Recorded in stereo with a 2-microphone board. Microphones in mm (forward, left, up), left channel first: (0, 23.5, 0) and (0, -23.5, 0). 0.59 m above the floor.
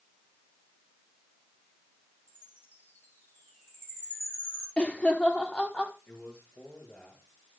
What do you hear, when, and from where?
2.3 s a chime: 40° left (ahead or behind), 9 m
4.8 s laughter: 25° left (ahead or behind), 1.3 m
6.1 s a man speaking: 50° left (ahead or behind), 7.5 m